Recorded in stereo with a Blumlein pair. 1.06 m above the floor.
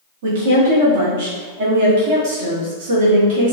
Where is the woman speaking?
50° right, 1.3 m.